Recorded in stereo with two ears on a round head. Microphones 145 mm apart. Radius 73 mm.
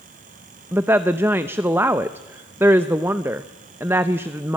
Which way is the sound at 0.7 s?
15° right (ahead or behind).